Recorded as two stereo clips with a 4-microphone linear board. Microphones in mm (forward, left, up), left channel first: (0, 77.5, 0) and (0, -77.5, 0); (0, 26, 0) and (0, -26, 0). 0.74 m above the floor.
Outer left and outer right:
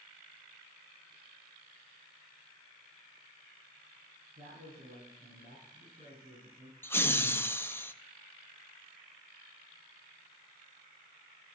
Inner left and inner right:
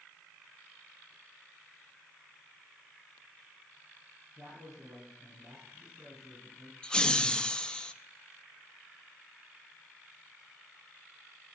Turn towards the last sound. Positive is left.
turn(degrees=15)  # may be behind; listen again after turning